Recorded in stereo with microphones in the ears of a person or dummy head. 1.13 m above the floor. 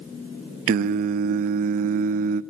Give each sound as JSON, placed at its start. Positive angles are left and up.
{"t": 0.7, "sound": "singing", "side_deg": -50, "distance_m": 0.6}